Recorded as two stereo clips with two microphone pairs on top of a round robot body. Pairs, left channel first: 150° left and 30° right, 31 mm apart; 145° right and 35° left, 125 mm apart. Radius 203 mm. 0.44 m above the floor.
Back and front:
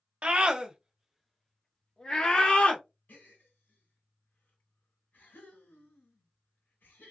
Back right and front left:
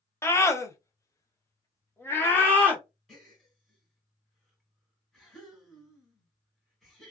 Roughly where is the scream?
Right.